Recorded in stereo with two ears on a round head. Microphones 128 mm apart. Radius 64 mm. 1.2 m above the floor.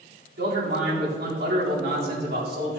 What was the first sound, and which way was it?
A man speaking, 80° right.